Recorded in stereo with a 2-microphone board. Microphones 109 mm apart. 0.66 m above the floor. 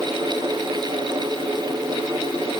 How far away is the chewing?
No chewing in this recording.